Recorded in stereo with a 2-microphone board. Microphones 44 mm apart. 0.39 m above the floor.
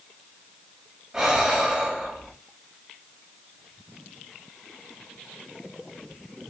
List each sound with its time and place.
1.1 s breathing: 10° right (ahead or behind), 2.5 m